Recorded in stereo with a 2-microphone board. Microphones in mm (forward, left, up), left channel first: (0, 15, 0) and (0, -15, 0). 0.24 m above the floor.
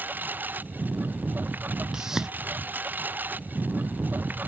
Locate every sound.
0.0 s a lawn mower: 85° right; by 4.5 s 80° right
1.9 s a whoosh: 15° right (ahead or behind)